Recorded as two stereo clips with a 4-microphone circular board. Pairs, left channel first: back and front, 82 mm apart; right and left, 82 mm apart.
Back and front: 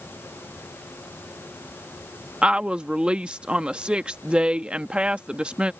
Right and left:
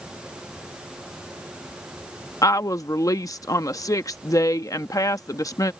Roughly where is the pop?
I don't hear a pop.